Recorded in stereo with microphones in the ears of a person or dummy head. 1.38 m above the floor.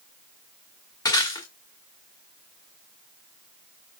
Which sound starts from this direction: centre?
Breaking glass, at 1.1 s.